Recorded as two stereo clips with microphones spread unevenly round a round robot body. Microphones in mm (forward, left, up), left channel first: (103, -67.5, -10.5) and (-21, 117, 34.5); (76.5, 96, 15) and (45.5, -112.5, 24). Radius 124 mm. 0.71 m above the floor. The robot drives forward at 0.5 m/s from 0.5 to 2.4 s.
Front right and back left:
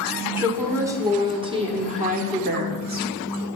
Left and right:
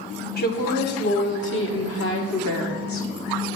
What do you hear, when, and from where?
0.4 s a woman speaking: 40° left, 1.7 m; by 3.1 s 70° left, 1.2 m